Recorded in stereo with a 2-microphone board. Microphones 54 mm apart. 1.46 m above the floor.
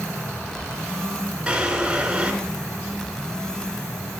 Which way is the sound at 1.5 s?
15° right (ahead or behind).